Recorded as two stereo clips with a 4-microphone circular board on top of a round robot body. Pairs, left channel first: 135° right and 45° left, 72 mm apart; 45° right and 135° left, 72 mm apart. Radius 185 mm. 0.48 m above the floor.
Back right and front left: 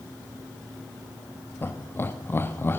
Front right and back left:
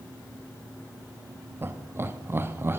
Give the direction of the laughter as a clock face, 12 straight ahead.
6 o'clock.